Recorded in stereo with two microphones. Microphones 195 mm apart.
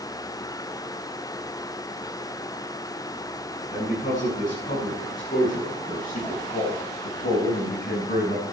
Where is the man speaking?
40° left (ahead or behind), 7 m; by 8.4 s 55° left (ahead or behind), 5 m.